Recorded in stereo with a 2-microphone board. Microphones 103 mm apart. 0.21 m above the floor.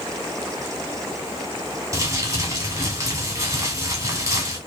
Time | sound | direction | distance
1.9 | crumpling | 30° right (ahead or behind) | 1.4 m